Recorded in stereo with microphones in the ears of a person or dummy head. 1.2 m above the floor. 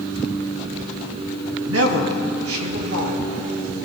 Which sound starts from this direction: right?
A man speaking, at 1.6 s.